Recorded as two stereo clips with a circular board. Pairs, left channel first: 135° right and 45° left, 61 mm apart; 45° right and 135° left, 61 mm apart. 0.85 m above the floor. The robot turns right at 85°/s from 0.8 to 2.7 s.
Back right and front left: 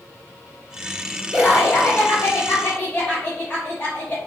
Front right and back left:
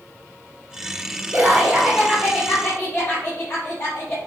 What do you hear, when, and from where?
1.3 s laughter: 165° left, 0.6 m; by 4.2 s 75° right, 0.6 m